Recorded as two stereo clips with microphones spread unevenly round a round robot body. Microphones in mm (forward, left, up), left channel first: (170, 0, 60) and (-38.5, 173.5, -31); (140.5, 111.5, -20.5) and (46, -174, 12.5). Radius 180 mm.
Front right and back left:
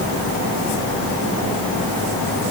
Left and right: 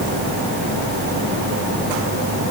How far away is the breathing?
I don't hear breathing.